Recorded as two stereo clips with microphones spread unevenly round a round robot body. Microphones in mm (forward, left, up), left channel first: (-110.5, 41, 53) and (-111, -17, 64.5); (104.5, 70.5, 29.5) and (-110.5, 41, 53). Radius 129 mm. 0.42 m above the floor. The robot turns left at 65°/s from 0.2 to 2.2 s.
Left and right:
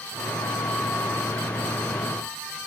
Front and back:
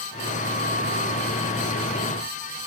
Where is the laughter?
No laughter in this recording.